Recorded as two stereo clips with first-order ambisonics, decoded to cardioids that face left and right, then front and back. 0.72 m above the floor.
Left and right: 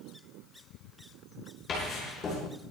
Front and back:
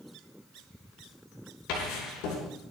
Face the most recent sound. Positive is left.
turn(degrees=25)